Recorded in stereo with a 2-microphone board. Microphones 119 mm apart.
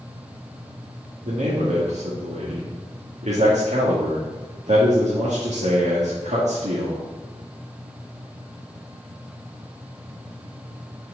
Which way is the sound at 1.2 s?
75° right (ahead or behind).